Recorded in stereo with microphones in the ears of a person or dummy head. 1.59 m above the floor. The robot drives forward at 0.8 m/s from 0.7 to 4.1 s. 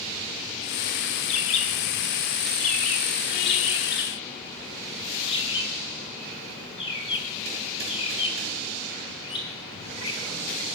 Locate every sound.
1.3 s a bird: 35° left (ahead or behind), 1.7 m; by 10.7 s 30° left (ahead or behind), 2 m